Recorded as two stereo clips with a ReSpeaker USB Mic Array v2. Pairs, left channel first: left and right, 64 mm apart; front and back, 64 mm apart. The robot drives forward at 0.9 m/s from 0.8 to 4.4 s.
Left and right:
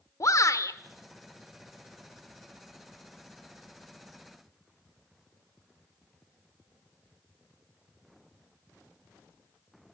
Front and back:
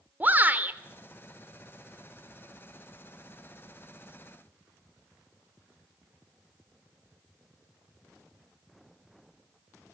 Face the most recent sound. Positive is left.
turn(degrees=160)